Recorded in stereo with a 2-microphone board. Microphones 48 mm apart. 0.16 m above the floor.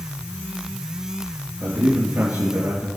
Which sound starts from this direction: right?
A man speaking, at 1.6 s.